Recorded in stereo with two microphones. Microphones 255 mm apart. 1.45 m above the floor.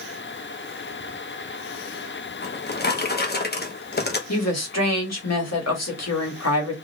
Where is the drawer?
40° left (ahead or behind), 0.8 m.